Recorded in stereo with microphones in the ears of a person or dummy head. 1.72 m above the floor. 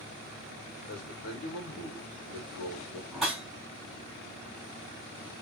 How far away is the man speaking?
About 2.5 m.